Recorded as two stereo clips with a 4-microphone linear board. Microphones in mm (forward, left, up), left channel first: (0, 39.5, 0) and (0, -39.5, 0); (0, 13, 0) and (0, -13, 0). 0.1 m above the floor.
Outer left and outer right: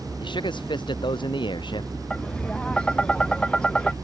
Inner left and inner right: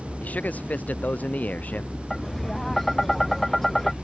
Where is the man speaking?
80° left.